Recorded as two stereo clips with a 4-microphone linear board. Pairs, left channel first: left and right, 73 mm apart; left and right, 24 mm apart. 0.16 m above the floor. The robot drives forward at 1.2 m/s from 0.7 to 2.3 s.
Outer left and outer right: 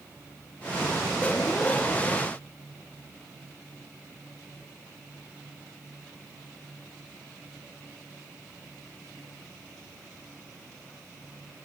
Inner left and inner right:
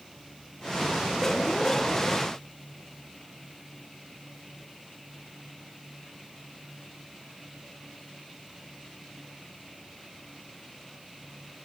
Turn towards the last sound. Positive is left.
No sound to turn to.